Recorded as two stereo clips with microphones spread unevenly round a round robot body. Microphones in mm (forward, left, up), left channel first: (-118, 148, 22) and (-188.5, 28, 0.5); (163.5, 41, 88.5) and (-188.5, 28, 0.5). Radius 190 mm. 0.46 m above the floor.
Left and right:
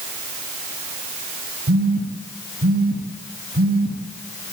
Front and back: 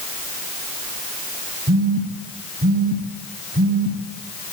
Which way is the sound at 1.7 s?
110° right.